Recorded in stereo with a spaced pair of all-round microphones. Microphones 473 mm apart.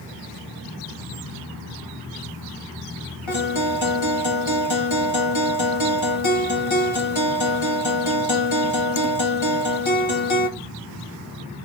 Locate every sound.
3.3 s a guitar: 80° left, 1.2 m